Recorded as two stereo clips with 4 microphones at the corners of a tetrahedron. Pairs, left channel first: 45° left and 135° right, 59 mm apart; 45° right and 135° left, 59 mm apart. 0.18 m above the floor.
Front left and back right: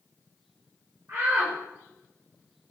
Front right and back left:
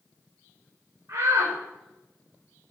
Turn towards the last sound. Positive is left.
turn(degrees=175)